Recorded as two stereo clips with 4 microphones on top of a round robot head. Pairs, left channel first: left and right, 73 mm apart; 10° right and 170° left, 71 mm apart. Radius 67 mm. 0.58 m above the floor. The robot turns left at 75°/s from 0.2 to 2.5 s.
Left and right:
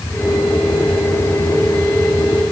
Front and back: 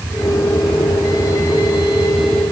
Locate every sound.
Only background noise.